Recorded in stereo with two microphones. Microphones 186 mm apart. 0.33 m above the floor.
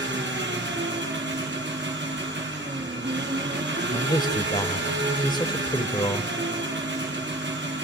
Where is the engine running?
65° right (ahead or behind), 3.5 m.